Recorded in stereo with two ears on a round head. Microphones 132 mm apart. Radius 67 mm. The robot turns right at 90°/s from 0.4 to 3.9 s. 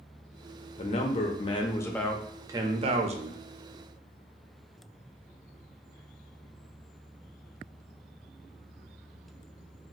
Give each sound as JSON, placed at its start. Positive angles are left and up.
{"t": 0.8, "sound": "a man speaking", "azimuth_deg": 60, "distance_m": 0.6}